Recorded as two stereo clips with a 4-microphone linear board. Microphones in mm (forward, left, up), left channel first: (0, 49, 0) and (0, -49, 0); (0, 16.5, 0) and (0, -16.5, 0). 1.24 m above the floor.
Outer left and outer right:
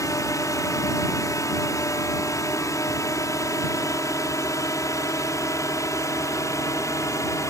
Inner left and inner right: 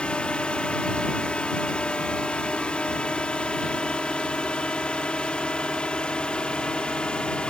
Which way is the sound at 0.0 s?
35° left (ahead or behind).